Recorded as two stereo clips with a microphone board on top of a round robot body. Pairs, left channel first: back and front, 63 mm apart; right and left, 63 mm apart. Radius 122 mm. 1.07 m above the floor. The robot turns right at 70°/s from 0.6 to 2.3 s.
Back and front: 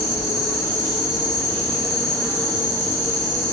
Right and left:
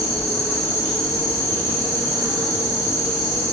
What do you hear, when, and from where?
0.0 s an insect: 10° left, 1.0 m; by 3.5 s 130° left, 1.0 m